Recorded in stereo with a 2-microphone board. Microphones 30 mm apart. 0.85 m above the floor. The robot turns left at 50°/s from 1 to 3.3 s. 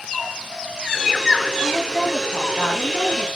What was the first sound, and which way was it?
A woman speaking, 175° right.